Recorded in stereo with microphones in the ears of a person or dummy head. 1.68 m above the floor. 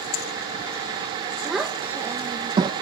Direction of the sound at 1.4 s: Centre (ahead or behind).